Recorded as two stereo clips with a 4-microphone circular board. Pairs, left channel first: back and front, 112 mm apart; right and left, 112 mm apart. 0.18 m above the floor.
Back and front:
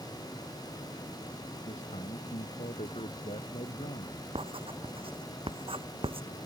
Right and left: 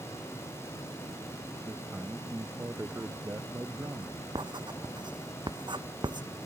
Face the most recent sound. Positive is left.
turn(degrees=40)